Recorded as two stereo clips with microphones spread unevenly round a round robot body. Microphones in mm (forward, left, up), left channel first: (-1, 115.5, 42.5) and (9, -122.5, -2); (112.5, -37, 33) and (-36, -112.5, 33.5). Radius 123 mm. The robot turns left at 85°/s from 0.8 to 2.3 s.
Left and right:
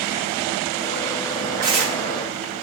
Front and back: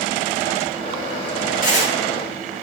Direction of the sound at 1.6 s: 5° right.